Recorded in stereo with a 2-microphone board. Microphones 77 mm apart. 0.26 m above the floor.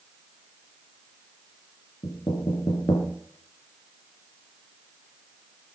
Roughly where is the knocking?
Left.